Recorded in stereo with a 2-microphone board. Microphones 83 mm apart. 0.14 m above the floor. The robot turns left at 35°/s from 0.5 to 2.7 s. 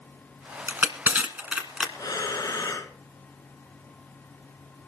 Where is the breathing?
45° left (ahead or behind), 2 m; by 2.9 s 40° left (ahead or behind), 2 m.